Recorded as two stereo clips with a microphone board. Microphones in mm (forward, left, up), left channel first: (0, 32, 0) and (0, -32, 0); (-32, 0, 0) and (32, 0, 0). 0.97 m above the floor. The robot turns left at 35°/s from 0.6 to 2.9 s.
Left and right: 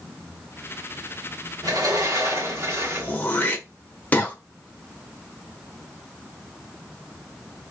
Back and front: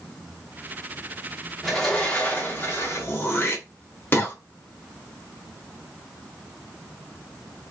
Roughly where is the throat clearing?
Behind left.